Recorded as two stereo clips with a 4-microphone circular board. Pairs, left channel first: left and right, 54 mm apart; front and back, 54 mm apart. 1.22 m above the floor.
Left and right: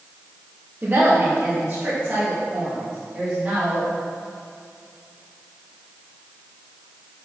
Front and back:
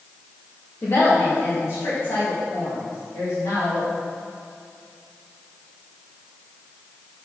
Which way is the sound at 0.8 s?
35° right.